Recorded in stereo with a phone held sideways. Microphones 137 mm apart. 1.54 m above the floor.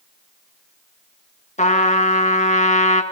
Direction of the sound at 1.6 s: 65° left (ahead or behind).